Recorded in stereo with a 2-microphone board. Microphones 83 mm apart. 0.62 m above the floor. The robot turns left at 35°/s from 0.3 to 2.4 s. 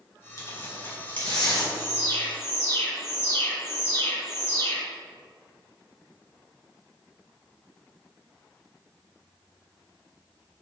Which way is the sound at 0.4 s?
40° left (ahead or behind).